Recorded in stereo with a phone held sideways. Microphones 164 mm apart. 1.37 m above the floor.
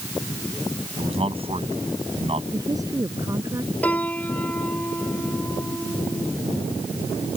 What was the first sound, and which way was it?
A man speaking, 35° right (ahead or behind).